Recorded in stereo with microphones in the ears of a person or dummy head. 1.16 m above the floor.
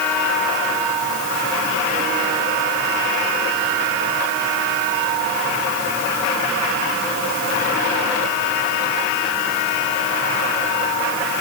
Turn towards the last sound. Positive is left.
No sound to turn to.